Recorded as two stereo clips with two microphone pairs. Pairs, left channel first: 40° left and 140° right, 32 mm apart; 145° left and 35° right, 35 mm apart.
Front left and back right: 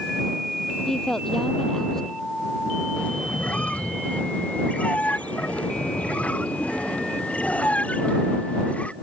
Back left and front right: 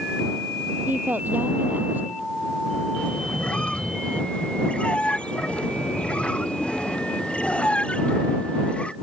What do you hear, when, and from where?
0.9 s a woman speaking: 30° right
3.0 s a squeak: 90° left